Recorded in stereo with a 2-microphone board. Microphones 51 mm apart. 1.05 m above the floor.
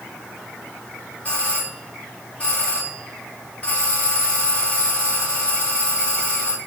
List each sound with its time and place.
1.2 s a doorbell: 30° left (ahead or behind), 5 m